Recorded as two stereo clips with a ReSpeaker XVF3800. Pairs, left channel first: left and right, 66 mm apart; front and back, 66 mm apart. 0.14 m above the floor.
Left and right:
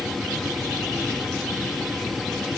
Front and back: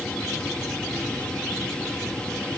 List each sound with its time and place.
Only background noise.